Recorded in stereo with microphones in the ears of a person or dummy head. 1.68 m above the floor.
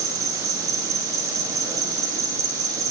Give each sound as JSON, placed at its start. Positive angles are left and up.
{"t": 0.0, "sound": "an insect", "side_deg": -20, "distance_m": 2.0}